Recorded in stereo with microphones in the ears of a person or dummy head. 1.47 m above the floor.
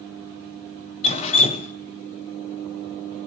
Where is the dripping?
40° left (ahead or behind), 1.1 m.